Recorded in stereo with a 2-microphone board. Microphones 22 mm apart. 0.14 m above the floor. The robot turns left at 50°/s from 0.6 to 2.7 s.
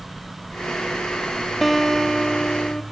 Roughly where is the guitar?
Behind.